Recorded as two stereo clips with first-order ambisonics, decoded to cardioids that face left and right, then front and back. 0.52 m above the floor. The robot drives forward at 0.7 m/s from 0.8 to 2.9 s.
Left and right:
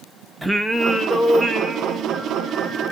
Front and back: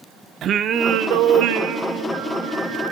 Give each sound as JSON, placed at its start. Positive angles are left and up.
{"t": 0.4, "sound": "singing", "azimuth_deg": 180, "distance_m": 0.5}